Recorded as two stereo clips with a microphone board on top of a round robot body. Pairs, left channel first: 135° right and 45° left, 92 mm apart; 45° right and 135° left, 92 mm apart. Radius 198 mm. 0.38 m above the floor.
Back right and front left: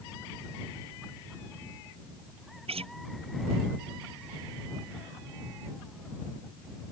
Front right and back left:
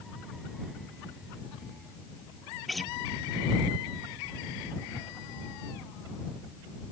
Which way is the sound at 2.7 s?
45° left.